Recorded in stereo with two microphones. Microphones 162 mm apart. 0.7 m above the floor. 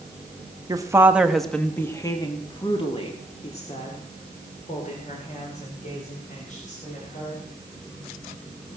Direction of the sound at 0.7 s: 25° right (ahead or behind).